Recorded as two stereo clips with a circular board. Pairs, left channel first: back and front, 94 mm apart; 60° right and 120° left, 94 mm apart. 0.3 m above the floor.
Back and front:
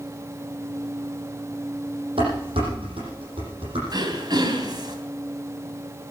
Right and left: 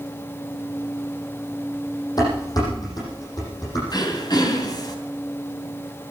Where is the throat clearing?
30° right, 2.5 m.